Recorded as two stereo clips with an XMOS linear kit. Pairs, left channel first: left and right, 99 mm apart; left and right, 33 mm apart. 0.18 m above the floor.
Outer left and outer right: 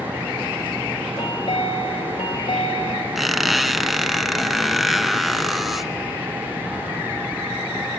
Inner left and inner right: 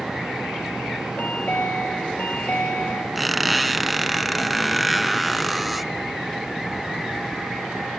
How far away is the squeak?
About 1.0 m.